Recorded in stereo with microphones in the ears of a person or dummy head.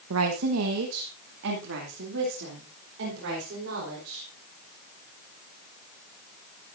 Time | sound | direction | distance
0.1 | a woman speaking | 85° right | 1.2 m